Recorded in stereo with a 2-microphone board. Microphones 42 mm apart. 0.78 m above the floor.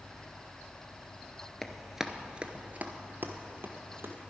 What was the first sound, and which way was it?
Running footsteps, 10° left (ahead or behind).